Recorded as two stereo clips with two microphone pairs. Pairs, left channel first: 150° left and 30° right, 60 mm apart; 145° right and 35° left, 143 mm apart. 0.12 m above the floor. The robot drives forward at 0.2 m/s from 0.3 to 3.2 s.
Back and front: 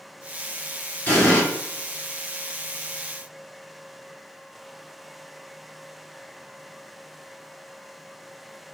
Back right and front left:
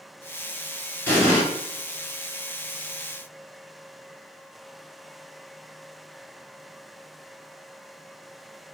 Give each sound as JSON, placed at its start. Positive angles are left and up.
{"t": 1.1, "sound": "an explosion", "azimuth_deg": 155, "distance_m": 1.6}